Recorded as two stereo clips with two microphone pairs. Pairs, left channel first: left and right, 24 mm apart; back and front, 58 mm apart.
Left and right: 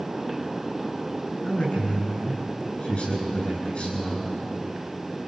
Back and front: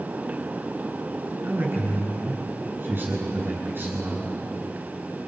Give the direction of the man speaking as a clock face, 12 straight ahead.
10 o'clock.